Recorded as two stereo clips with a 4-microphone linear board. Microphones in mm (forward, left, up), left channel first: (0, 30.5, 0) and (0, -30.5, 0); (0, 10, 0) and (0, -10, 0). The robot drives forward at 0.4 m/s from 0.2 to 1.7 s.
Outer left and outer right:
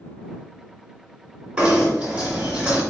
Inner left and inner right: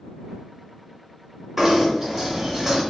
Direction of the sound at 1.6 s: 15° right (ahead or behind).